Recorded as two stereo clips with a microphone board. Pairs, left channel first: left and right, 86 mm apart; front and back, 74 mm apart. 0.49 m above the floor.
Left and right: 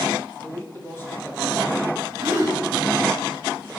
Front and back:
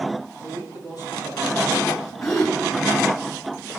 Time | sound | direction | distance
0.4 | a man speaking | 25° left | 7 m
2.2 | a gasp | 40° right | 4 m